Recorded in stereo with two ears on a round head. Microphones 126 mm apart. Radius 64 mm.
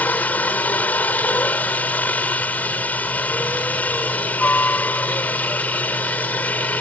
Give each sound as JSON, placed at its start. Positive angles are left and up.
{"t": 0.0, "sound": "a helicopter", "side_deg": 10}